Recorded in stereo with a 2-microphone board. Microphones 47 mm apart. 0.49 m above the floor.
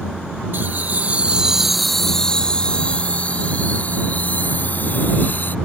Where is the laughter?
55° right (ahead or behind); by 5.5 s 45° left (ahead or behind).